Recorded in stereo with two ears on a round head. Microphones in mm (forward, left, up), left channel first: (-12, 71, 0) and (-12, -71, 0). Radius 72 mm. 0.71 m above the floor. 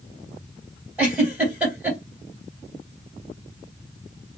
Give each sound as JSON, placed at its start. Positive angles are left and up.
{"t": 1.0, "sound": "a giggle", "side_deg": -10, "distance_m": 3.0}